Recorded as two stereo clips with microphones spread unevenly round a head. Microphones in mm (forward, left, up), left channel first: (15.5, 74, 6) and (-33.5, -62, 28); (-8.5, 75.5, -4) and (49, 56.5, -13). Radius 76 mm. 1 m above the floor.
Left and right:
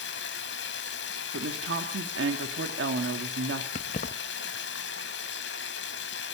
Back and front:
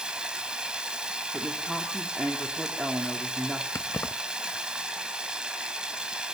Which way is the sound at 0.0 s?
60° left.